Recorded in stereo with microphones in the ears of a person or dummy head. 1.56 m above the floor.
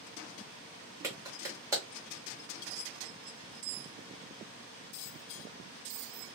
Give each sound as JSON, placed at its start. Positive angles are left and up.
{"t": 1.0, "sound": "a clap", "side_deg": -15, "distance_m": 1.3}